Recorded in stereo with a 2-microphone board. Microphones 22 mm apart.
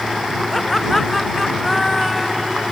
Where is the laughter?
5° left (ahead or behind); by 2.6 s 5° right (ahead or behind).